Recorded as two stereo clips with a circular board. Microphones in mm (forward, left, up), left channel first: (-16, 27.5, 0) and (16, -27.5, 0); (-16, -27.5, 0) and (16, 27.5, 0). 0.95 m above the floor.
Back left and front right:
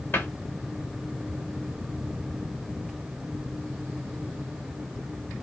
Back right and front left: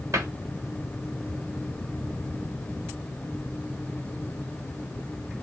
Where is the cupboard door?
70° left, 1.2 m.